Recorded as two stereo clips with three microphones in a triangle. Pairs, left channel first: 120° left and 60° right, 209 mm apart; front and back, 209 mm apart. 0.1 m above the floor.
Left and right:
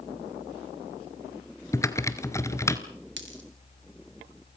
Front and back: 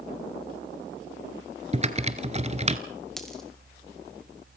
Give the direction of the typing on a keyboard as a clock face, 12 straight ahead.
6 o'clock.